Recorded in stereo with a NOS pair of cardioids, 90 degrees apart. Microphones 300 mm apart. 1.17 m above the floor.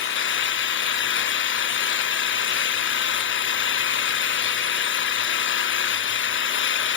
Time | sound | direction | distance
0.0 | an engine running | 40° left | 0.8 m